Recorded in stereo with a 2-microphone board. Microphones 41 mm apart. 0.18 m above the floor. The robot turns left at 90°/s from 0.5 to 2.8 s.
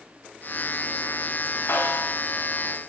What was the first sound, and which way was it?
A snare drum, 80° left.